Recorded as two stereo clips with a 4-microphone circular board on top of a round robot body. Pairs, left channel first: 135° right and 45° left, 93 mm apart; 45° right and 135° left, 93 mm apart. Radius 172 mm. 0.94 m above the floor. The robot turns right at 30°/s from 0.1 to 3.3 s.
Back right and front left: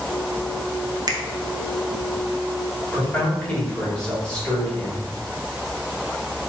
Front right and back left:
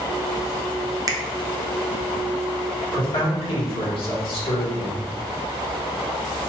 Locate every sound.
1.1 s a finger snap: 90° left, 0.6 m
2.9 s a man speaking: 65° right, 1.6 m; by 5.0 s 55° right, 1.6 m